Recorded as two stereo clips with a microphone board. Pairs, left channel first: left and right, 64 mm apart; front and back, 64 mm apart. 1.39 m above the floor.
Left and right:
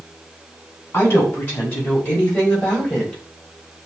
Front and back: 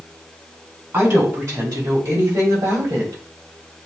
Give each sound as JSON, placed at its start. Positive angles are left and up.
{"t": 0.9, "sound": "a woman speaking", "azimuth_deg": 135, "distance_m": 2.5}